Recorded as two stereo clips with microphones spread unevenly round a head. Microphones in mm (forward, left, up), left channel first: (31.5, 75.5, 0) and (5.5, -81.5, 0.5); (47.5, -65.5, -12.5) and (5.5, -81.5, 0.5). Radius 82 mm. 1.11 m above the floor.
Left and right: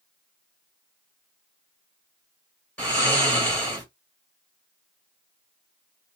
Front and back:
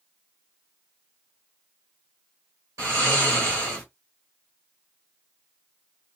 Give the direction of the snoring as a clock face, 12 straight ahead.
7 o'clock.